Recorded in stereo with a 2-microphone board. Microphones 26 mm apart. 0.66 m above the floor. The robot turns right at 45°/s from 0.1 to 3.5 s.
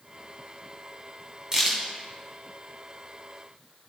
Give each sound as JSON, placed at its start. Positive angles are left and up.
{"t": 1.5, "sound": "a crack", "side_deg": -20, "distance_m": 2.5}